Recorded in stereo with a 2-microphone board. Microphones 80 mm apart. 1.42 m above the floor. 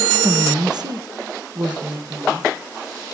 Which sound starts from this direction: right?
A woman speaking, at 0.2 s.